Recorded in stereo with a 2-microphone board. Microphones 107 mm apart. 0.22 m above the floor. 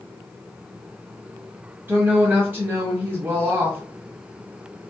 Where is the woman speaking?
20° right (ahead or behind), 1.1 m.